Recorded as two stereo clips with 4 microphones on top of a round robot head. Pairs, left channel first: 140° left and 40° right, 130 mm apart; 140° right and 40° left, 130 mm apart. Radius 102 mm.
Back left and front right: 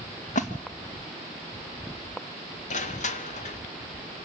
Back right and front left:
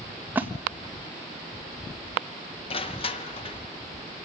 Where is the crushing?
175° left, 1.7 m.